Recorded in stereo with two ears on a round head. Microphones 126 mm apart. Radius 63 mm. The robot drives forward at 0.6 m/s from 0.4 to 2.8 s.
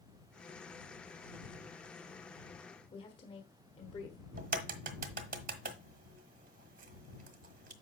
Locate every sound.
2.9 s a woman speaking: 35° left (ahead or behind), 1.2 m
4.4 s a crack: 65° right (ahead or behind), 1.0 m